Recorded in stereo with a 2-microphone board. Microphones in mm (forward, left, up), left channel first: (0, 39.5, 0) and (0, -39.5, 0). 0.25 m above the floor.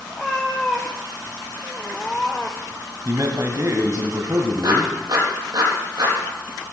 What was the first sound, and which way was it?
A cat meowing, 10° left (ahead or behind).